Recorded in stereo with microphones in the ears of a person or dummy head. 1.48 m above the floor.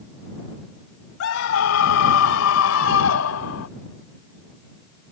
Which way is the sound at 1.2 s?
75° left (ahead or behind).